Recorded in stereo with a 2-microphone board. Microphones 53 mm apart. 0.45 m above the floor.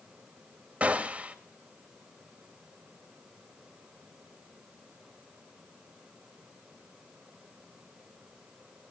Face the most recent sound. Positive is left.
turn(degrees=-25)  # may be behind; listen again after turning